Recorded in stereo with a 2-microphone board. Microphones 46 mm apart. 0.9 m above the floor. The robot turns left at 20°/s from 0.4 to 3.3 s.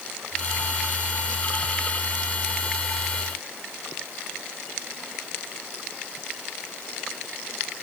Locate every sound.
Only background noise.